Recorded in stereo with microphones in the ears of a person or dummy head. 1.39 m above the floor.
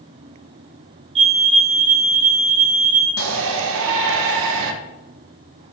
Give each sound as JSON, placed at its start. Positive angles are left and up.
{"t": 1.1, "sound": "a fire alarm", "side_deg": -35, "distance_m": 5.0}
{"t": 3.2, "sound": "a shout", "side_deg": -70, "distance_m": 1.7}